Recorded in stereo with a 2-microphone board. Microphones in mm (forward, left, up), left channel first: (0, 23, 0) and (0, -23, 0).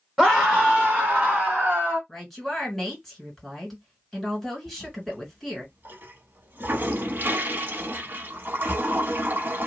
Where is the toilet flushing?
45° right (ahead or behind), 0.5 m.